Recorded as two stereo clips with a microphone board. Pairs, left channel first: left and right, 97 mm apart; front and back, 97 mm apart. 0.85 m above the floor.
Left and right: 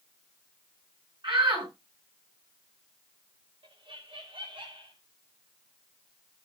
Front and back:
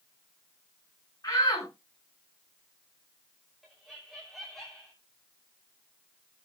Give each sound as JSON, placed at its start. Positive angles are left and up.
{"t": 1.2, "sound": "a shout", "azimuth_deg": -55, "distance_m": 8.0}
{"t": 3.6, "sound": "laughter", "azimuth_deg": -90, "distance_m": 3.0}